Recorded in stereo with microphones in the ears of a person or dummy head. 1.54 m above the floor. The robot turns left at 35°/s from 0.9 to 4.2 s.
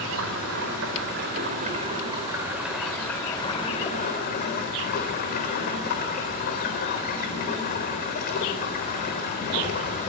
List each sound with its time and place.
0.0 s running water: 115° right, 3.5 m; by 10.1 s 130° left, 3.5 m